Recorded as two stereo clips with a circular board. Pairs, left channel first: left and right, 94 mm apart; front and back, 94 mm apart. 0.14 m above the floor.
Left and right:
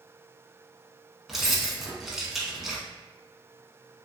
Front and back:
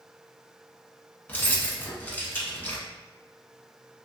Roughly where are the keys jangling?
Ahead.